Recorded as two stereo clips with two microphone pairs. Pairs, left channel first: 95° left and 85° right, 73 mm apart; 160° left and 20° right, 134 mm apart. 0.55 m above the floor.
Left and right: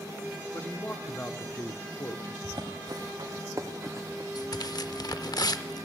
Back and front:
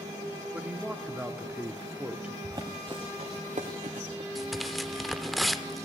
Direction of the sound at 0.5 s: 60° left.